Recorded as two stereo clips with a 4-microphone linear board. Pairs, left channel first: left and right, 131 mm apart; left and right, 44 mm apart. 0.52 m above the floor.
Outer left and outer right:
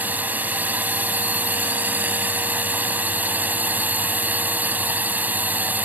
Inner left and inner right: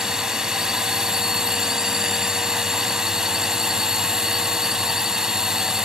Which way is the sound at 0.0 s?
15° right (ahead or behind).